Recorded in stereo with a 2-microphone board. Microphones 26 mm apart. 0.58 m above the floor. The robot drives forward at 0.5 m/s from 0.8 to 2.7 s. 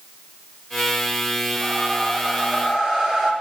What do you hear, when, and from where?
1.6 s a whoosh: 15° left (ahead or behind), 7.5 m